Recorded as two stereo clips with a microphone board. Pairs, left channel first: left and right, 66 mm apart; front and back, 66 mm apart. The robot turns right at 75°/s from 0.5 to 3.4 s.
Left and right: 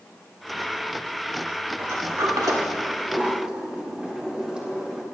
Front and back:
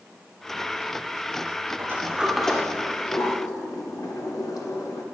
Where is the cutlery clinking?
I don't hear cutlery clinking.